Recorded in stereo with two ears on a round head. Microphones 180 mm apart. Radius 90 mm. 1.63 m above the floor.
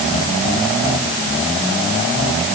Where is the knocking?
No knocking in this recording.